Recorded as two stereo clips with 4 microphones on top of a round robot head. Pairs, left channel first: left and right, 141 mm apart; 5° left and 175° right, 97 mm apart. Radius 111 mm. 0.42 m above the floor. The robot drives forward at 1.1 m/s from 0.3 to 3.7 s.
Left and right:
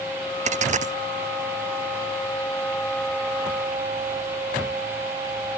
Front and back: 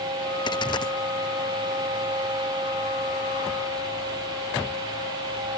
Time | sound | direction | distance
0.5 | a dropped coin | 50° right | ?